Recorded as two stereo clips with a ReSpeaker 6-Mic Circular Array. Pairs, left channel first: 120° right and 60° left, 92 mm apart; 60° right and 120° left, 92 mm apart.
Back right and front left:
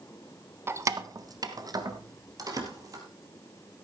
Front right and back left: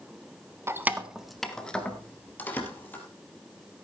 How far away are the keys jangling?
About 0.9 m.